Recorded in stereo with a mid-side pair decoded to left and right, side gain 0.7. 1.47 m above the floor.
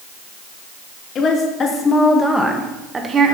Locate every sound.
1.1 s a woman speaking: 40° left, 2.5 m; by 3.4 s 35° right, 1.7 m